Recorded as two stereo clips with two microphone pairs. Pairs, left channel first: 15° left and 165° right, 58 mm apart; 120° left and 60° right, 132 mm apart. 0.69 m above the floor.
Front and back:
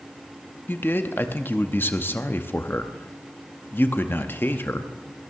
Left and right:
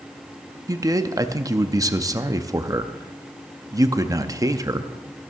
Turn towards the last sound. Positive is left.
turn(degrees=-20)